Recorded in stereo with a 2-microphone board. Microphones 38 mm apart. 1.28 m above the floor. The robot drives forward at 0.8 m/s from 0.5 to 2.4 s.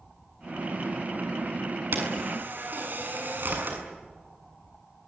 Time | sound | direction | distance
1.9 | a camera shutter | 60° right (ahead or behind) | 7 m